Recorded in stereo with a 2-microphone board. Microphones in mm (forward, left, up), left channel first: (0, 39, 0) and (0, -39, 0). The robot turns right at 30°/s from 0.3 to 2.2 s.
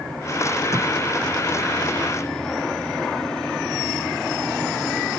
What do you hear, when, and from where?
0.7 s tape being pulled: 45° right (ahead or behind); by 0.9 s 50° right (ahead or behind)